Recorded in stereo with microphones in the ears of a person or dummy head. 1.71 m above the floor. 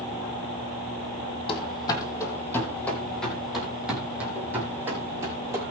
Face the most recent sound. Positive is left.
turn(degrees=-20)  # may be behind; listen again after turning